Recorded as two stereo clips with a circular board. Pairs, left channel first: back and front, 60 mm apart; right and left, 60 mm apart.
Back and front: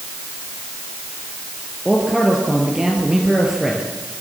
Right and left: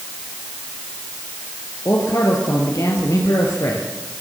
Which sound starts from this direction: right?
A man speaking, at 1.9 s.